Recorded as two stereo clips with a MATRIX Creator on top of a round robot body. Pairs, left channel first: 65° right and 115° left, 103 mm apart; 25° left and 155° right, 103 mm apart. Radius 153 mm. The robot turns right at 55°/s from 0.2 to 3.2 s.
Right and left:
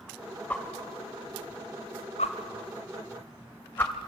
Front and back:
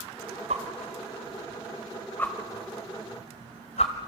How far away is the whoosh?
About 0.7 m.